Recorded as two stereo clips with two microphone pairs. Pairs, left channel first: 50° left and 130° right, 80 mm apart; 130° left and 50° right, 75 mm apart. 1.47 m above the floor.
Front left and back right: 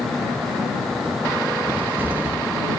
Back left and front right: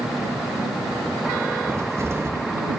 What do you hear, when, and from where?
1.7 s a cupboard door: 75° right